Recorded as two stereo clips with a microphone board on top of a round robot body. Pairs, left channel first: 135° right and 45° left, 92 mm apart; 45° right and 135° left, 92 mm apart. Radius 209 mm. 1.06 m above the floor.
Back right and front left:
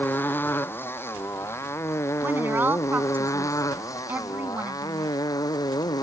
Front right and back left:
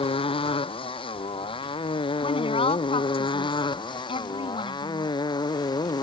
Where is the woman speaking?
25° right.